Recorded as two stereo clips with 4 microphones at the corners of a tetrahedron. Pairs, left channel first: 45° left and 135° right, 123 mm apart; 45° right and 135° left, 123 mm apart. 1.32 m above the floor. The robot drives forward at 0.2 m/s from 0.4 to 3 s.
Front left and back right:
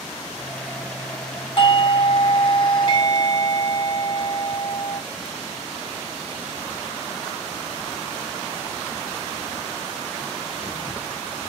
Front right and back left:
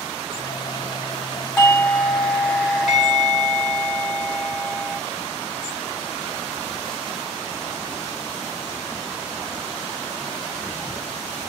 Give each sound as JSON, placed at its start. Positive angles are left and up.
{"t": 1.6, "sound": "a doorbell", "azimuth_deg": 30, "distance_m": 1.3}